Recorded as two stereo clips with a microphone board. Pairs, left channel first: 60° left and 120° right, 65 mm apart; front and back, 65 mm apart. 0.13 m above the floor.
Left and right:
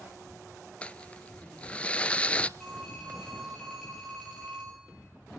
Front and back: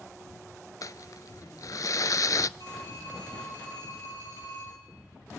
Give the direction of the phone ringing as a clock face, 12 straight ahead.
1 o'clock.